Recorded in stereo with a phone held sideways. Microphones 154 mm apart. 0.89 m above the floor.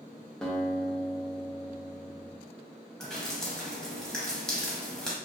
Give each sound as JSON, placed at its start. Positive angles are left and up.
{"t": 0.4, "sound": "a guitar", "side_deg": 5, "distance_m": 0.5}
{"t": 3.0, "sound": "dripping", "side_deg": 5, "distance_m": 0.7}